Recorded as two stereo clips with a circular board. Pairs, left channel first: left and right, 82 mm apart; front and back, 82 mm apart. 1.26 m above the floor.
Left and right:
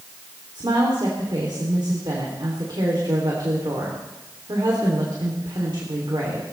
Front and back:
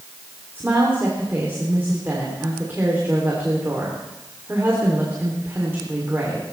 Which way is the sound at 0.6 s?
115° right.